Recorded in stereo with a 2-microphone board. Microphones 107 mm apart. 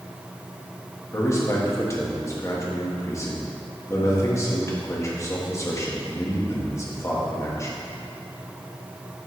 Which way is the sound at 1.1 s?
30° left (ahead or behind).